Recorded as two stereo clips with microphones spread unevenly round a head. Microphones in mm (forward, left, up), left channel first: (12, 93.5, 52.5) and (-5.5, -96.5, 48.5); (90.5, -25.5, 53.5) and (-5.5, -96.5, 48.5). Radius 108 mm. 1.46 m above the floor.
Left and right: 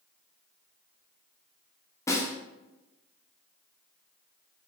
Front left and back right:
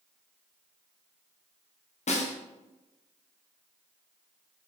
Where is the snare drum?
10° left, 0.9 m.